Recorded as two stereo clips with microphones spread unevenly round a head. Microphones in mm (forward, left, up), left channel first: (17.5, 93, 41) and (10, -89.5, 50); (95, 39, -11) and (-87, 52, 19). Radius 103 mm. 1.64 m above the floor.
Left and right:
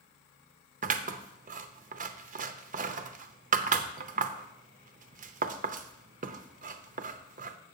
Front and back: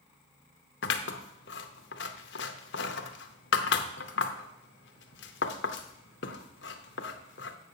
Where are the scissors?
45° right, 0.6 m.